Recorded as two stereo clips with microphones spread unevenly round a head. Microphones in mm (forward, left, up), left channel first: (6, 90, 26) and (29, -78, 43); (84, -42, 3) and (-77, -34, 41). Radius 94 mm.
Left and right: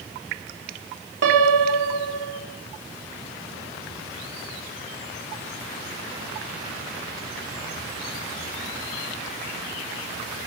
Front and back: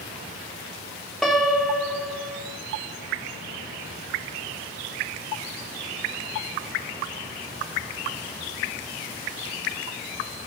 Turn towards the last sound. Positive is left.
turn(degrees=-90)